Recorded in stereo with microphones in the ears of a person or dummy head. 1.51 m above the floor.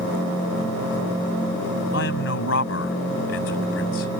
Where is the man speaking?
65° left (ahead or behind).